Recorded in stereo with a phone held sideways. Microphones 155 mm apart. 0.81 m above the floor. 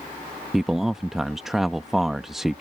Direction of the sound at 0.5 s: Centre (ahead or behind).